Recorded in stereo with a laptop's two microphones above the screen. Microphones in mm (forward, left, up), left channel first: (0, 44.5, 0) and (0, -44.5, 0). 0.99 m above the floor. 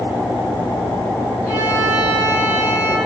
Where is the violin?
10° left (ahead or behind), 5 m.